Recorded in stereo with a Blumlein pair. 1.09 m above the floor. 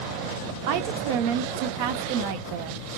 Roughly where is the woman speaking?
Ahead right.